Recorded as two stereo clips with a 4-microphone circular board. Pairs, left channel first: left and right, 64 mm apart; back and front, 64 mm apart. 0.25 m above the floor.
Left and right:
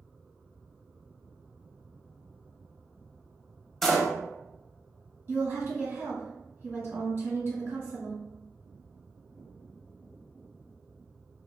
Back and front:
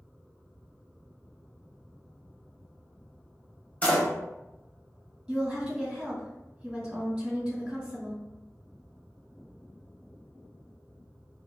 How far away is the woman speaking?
About 1.8 m.